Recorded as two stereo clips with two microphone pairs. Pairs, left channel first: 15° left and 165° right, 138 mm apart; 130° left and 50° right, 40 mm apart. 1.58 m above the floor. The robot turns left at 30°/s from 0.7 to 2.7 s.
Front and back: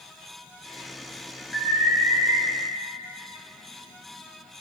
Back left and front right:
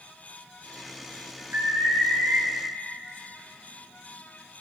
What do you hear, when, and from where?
1.5 s an alarm: 65° right, 4 m; by 2.4 s 95° right, 4 m